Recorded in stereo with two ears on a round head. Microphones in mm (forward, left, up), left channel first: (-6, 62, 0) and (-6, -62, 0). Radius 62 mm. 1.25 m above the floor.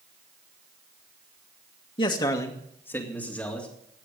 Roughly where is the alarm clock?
No alarm clock in this recording.